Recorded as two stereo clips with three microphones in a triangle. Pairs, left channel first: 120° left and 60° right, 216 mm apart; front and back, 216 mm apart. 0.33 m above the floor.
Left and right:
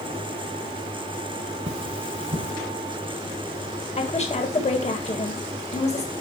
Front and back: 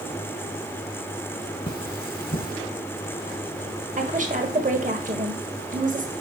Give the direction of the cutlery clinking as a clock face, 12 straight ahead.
1 o'clock.